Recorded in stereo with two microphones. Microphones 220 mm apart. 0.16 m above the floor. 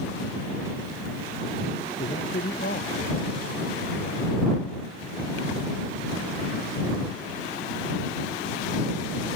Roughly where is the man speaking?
Left.